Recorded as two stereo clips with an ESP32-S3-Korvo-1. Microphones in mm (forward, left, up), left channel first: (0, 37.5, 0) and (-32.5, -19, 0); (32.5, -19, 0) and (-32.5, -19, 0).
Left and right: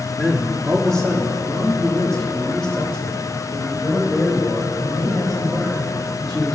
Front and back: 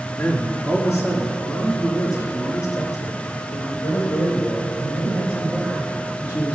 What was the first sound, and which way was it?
A man speaking, 20° right.